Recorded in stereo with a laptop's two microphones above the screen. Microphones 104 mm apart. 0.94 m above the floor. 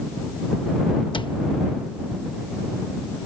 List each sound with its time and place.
1.1 s a cupboard door: 50° left (ahead or behind)